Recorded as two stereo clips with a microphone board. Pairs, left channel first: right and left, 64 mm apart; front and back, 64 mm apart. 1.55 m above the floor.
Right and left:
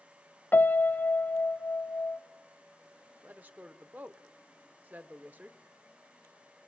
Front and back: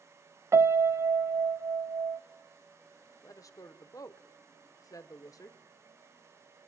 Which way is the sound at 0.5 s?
145° right.